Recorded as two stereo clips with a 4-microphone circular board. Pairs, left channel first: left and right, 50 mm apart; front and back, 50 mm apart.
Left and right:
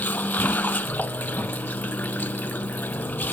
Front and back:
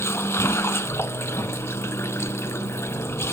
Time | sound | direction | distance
0.0 | running water | 35° left | ?